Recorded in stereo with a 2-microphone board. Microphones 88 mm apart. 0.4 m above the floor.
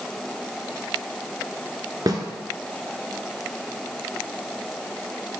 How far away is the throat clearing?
No throat clearing in this recording.